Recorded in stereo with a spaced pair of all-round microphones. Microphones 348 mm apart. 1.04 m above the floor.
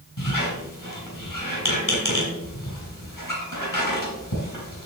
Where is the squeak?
65° left (ahead or behind), 3.5 m.